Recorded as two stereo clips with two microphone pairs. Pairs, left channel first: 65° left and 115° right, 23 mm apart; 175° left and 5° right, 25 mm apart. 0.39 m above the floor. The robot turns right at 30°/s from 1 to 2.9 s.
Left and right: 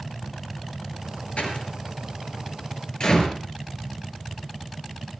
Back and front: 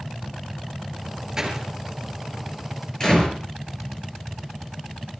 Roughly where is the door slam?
Ahead left.